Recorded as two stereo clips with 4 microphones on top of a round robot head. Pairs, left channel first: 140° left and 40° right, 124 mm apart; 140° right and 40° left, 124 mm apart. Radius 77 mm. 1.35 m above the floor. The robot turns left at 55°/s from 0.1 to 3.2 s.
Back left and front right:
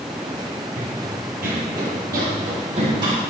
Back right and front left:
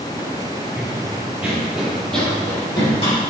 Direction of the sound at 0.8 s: 45° right.